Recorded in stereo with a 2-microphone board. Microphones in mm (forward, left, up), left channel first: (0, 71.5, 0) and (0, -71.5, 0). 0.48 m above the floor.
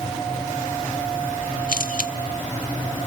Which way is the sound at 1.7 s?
75° left (ahead or behind).